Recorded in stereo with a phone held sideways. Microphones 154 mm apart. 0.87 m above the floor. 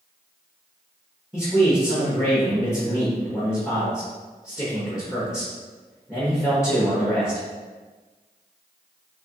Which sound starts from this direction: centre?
A man speaking, at 1.3 s.